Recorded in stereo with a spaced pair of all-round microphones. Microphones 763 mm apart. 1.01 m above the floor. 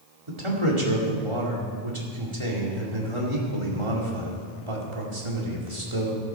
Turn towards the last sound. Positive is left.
turn(degrees=-40)  # may be behind; listen again after turning